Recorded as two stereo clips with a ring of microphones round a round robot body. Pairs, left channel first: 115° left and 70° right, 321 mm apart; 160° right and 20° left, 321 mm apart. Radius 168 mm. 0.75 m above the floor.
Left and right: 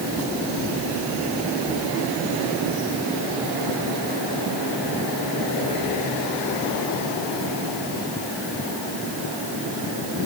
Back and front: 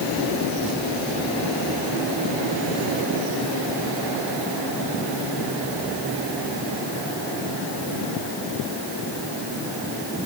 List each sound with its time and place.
Only background noise.